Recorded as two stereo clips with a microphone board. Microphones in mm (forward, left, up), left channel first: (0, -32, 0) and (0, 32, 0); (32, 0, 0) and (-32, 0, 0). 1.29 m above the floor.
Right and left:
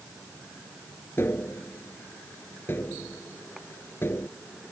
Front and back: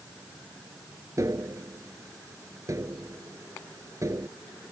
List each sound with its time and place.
1.2 s tapping: 145° right